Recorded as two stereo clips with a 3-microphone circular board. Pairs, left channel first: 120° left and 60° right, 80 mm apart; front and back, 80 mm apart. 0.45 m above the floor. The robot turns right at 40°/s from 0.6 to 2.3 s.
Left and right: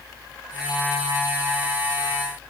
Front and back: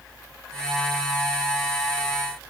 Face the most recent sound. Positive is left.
No sound to turn to.